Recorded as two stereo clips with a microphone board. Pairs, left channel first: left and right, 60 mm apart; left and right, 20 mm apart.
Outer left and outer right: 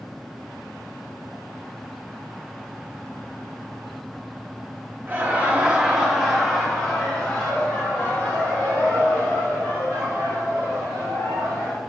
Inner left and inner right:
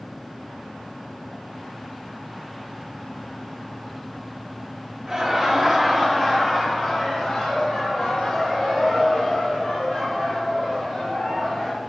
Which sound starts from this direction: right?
Laughter, at 5.1 s.